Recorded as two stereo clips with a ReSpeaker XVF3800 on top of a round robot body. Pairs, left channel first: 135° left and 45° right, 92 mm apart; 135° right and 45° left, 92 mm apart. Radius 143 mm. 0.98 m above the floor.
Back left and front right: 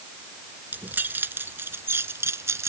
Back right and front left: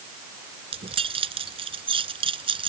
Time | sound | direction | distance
0.7 | keys jangling | 25° left | ?